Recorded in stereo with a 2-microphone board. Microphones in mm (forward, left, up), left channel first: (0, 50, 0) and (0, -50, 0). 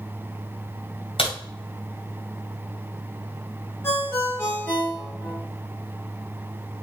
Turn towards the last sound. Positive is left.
turn(degrees=25)  # may be behind; listen again after turning